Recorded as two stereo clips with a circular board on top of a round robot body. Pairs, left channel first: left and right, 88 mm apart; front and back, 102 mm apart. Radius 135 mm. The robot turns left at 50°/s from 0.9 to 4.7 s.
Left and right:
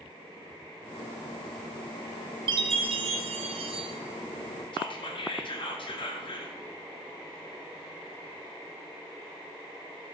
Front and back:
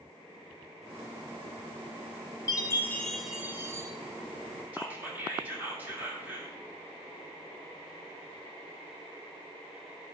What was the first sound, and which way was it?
A chime, 55° right.